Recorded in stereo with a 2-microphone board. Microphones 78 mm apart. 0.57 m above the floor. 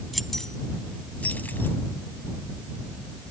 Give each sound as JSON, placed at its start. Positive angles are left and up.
{"t": 0.1, "sound": "keys jangling", "side_deg": 0}